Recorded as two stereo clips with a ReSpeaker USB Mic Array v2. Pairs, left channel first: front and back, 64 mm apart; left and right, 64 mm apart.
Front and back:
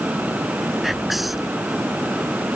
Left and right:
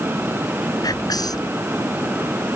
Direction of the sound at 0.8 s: 95° left.